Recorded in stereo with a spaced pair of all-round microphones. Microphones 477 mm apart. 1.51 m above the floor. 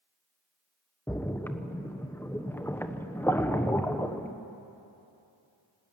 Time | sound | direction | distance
1.1 | a splash | 5° left (ahead or behind) | 1.0 m